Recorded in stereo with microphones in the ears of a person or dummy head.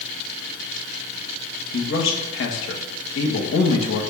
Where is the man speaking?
75° left (ahead or behind), 2 m.